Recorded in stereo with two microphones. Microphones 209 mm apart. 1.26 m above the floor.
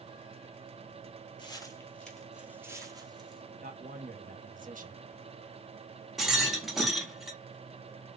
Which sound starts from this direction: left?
Footsteps, at 1.4 s.